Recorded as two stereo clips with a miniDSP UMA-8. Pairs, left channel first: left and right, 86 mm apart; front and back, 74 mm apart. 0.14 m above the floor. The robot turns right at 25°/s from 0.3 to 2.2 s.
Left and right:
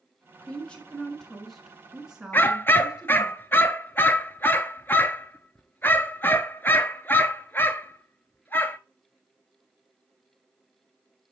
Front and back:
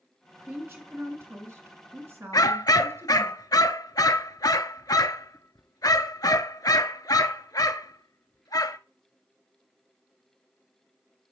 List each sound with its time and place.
0.4 s a woman speaking: 150° left, 1.9 m; by 3.3 s 165° right, 1.9 m
2.3 s a dog barking: 25° left, 0.6 m